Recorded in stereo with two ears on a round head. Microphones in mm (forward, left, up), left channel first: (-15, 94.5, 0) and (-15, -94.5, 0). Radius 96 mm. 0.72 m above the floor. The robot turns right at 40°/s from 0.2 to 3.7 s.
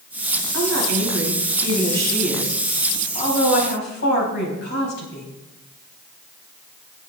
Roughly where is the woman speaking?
Right.